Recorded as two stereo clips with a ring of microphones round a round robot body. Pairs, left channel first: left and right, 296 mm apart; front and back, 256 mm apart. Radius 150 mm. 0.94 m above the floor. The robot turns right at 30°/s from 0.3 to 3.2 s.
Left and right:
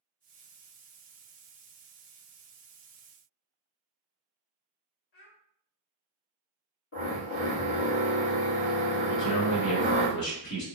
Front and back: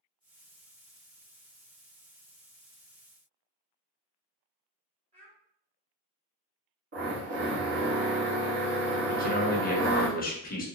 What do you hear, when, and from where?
5.1 s a child speaking: 110° left, 1.2 m
6.9 s a drill: 140° left, 2.0 m
9.1 s a man speaking: 55° left, 1.2 m